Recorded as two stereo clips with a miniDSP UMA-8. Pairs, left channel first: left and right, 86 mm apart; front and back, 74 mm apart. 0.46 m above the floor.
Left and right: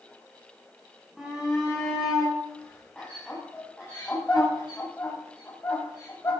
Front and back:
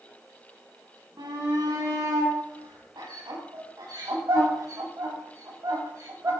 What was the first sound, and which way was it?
A shout, straight behind.